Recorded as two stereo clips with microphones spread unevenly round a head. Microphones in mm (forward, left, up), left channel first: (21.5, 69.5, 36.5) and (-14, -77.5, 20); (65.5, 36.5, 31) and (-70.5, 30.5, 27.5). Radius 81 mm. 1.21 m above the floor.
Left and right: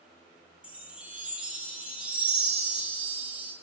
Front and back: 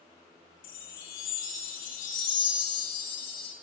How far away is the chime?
About 2 m.